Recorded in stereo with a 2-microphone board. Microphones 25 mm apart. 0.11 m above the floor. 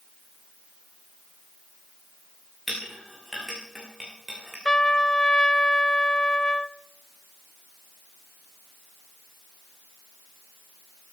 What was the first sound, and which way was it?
A clink, 15° right (ahead or behind).